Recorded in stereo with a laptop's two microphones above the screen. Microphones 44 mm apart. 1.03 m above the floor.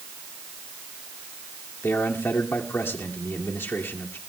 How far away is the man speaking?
About 2 m.